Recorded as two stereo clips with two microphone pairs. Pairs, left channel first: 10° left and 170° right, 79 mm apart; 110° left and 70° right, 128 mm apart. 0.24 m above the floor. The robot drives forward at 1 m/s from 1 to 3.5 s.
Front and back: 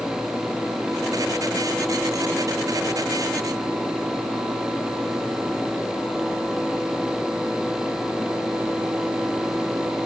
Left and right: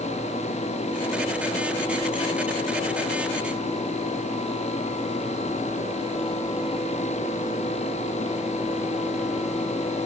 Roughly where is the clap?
No clap in this recording.